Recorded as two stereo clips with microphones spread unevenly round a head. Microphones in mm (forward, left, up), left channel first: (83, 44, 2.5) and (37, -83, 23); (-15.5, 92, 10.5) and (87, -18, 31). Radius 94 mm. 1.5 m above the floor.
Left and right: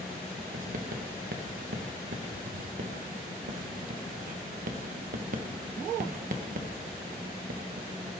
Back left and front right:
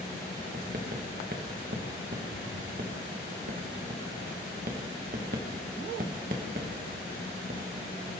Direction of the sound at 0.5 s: 95° right.